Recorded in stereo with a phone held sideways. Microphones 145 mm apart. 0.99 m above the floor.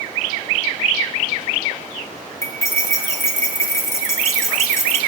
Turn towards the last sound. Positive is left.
turn(degrees=20)  # may be behind; listen again after turning